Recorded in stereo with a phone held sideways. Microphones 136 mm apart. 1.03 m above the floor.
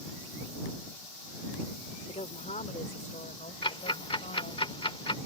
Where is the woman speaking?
55° left (ahead or behind); by 4.6 s 70° left (ahead or behind).